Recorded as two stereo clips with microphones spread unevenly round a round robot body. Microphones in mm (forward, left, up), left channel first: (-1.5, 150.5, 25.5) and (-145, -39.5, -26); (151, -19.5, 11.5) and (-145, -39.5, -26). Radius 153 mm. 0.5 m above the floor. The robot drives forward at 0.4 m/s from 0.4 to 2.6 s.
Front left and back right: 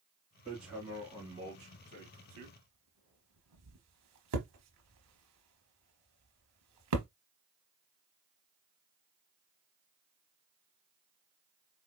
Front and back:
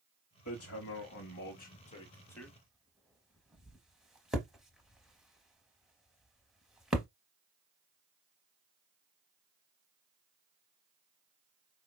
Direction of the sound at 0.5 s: 35° right.